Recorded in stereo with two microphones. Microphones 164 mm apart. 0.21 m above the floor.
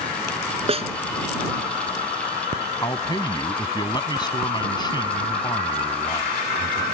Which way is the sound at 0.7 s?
35° right (ahead or behind).